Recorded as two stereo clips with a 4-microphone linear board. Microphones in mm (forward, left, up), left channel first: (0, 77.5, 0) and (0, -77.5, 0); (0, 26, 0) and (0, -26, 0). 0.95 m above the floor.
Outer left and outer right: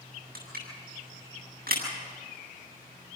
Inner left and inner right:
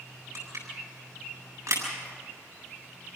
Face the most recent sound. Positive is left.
turn(degrees=-70)  # may be behind; listen again after turning